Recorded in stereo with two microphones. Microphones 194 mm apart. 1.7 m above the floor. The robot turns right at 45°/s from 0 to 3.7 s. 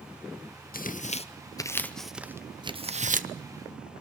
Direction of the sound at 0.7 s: 50° left (ahead or behind).